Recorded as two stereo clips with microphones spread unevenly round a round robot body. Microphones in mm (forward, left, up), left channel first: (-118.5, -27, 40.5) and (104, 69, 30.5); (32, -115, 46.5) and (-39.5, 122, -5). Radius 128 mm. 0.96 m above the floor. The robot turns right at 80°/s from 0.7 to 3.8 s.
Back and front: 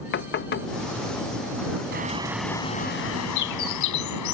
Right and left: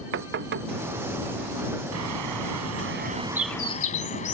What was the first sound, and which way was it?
Knocking, 155° left.